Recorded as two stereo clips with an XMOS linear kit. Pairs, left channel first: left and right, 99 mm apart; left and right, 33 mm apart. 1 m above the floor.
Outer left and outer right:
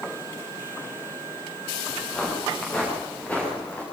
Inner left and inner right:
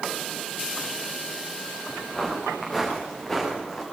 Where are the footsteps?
10° left (ahead or behind), 9 m; by 3.8 s 15° left (ahead or behind), 9.5 m.